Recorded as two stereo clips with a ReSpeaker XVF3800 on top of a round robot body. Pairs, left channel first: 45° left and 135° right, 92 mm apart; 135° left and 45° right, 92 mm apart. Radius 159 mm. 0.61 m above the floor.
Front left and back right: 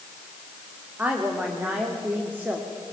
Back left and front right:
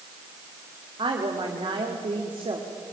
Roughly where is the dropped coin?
No dropped coin in this recording.